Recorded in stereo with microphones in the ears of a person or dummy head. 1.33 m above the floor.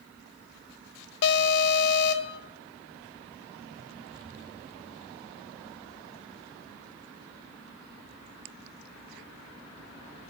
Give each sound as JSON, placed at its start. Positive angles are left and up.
{"t": 1.2, "sound": "an alarm", "side_deg": 60, "distance_m": 0.6}